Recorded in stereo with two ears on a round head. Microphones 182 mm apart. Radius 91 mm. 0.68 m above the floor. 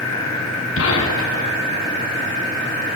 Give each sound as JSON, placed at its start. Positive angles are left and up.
{"t": 0.8, "sound": "a gunshot", "side_deg": 75, "distance_m": 7.0}